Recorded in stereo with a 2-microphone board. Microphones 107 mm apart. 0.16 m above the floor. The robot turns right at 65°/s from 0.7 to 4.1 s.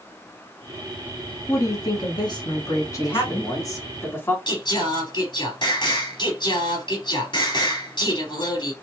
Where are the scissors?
I don't hear scissors.